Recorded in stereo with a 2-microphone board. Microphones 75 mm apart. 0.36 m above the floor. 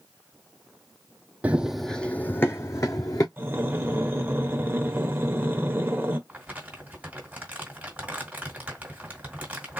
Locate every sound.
1.4 s running footsteps: 20° right (ahead or behind), 0.5 m; by 3.3 s 45° left (ahead or behind), 1.1 m
3.4 s breathing: 25° right (ahead or behind), 0.9 m
6.3 s crumpling: 20° right (ahead or behind), 1.6 m